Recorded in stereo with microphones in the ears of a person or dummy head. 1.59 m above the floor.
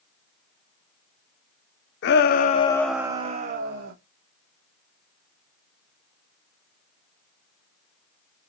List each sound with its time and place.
2.0 s a shout: 60° left (ahead or behind), 1.1 m; by 3.9 s 55° right (ahead or behind), 1.3 m